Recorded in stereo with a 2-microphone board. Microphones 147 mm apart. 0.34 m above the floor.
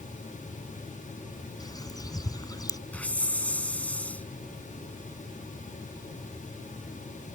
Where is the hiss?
10° left (ahead or behind).